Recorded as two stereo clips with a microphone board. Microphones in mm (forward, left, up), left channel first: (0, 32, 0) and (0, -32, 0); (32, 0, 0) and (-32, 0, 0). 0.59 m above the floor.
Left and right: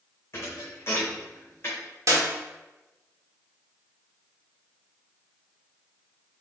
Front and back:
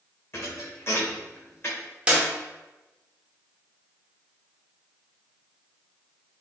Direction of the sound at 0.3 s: 45° left.